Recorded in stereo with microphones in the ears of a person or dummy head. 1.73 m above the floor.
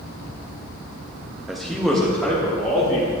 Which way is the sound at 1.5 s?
5° right (ahead or behind).